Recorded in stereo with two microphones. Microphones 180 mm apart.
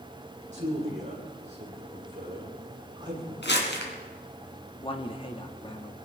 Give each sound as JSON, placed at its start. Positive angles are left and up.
{"t": 0.5, "sound": "a man speaking", "side_deg": -40, "distance_m": 9.5}
{"t": 3.4, "sound": "crumpling", "side_deg": 80, "distance_m": 3.0}
{"t": 4.8, "sound": "a man speaking", "side_deg": 30, "distance_m": 1.4}